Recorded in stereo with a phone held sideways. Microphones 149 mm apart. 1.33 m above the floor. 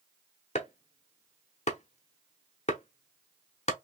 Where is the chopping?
50° left (ahead or behind), 0.9 m.